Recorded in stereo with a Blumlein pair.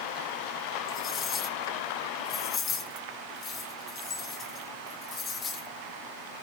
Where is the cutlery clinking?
25° left, 1.8 m.